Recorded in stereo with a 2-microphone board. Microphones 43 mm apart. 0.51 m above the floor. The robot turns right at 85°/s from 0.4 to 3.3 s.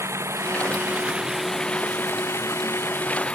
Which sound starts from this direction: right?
Running water, at 0.0 s.